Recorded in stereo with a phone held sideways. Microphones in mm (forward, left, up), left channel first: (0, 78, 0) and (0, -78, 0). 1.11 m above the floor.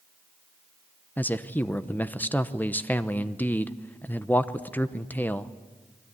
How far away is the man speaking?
About 0.8 m.